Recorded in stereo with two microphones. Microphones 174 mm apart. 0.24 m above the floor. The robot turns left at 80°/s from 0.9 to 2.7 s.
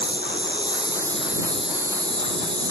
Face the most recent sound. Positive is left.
turn(degrees=-120)